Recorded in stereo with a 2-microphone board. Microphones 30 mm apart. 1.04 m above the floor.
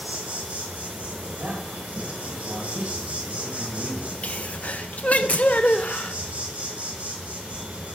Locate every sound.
0.0 s an insect: 70° right (ahead or behind), 2.5 m
1.4 s a man speaking: 80° right, 6.5 m
4.2 s a sneeze: 60° left (ahead or behind), 0.7 m